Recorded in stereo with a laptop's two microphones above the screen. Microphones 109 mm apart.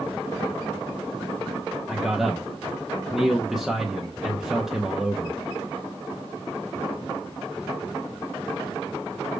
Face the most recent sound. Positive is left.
turn(degrees=-5)  # may be behind; listen again after turning